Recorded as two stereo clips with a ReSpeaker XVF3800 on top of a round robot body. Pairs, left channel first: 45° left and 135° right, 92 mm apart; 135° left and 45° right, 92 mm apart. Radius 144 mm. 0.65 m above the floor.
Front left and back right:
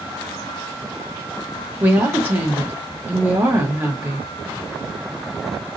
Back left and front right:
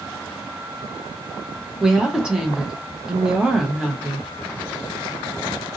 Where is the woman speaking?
110° right, 1.0 m.